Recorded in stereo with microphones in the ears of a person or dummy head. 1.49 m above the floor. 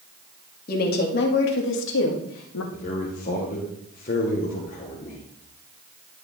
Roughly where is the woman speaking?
Left.